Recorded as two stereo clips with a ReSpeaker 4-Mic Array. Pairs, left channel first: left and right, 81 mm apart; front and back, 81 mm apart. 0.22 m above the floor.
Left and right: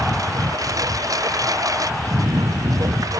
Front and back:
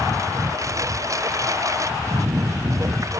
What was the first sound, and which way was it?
A lawn mower, 130° right.